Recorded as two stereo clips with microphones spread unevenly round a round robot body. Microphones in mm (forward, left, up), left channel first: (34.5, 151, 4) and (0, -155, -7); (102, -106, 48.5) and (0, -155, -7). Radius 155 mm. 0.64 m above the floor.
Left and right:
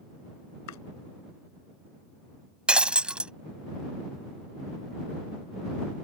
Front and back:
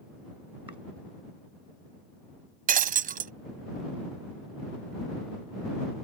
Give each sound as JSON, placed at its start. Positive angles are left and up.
{"t": 0.7, "sound": "chopping", "azimuth_deg": 125}
{"t": 2.7, "sound": "breaking glass", "azimuth_deg": 175}